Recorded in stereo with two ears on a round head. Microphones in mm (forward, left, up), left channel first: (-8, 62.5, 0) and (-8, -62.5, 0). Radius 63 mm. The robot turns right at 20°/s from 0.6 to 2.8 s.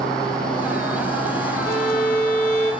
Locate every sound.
1.6 s a violin: 75° left (ahead or behind), 2.5 m; by 2.7 s 55° left (ahead or behind), 2.5 m